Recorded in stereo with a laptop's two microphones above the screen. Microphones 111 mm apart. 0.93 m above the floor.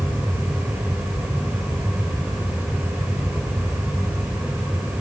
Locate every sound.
0.0 s a fan: 15° right (ahead or behind), 6.5 m